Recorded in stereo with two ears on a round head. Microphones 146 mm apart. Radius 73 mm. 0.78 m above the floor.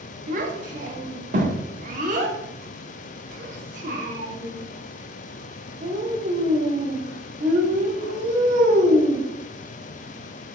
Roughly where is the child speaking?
Right.